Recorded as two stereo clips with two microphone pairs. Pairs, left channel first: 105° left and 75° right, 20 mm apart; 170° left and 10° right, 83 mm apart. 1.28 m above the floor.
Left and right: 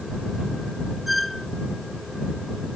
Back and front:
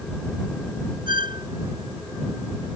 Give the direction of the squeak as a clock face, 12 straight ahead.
12 o'clock.